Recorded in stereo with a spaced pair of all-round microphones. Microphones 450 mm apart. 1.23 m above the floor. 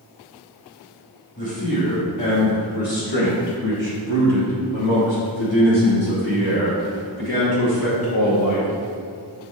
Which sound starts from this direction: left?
A man speaking, at 1.4 s.